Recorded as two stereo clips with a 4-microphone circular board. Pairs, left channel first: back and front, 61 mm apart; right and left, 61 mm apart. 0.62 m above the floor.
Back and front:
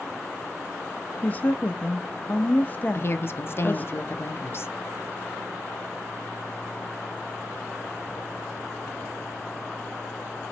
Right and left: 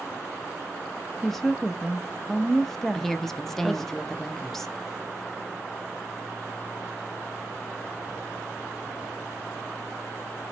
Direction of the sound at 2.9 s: 175° right.